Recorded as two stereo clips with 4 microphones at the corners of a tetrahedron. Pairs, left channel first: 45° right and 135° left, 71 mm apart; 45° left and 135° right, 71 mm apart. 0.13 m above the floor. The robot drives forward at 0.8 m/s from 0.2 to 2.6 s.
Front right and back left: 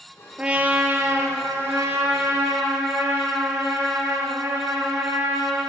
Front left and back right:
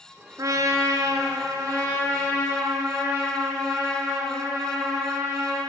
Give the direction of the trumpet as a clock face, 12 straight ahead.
5 o'clock.